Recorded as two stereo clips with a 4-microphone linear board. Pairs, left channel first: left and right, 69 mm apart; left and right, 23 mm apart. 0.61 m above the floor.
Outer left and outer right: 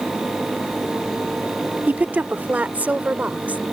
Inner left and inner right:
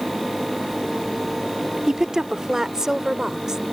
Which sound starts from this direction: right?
A woman speaking, at 1.9 s.